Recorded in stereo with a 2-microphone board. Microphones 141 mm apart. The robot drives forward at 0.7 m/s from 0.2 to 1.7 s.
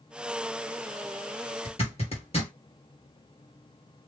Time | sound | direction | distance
1.6 | a zipper | 45° left (ahead or behind) | 2 m